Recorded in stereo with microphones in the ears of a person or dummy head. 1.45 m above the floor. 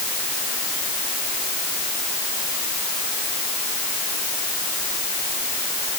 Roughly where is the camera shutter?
No camera shutter in this recording.